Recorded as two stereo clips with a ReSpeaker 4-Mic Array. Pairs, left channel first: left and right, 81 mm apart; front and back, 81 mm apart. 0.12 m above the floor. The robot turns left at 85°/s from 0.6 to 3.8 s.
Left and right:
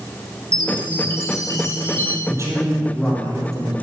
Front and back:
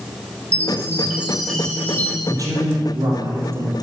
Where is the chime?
165° left, 2.0 m; by 2.2 s 30° left, 2.0 m.